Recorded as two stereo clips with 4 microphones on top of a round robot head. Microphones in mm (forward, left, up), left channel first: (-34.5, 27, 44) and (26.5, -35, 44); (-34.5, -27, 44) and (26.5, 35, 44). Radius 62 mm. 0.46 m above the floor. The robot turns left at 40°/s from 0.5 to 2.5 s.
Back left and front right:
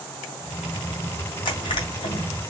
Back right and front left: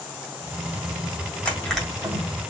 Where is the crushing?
150° left, 2 m; by 2.2 s 115° left, 2 m.